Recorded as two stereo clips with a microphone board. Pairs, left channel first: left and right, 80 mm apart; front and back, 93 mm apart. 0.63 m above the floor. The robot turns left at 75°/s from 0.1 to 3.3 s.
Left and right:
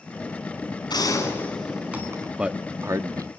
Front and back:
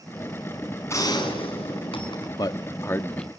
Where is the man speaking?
10° right, 0.7 m; by 3.3 s 80° right, 0.7 m.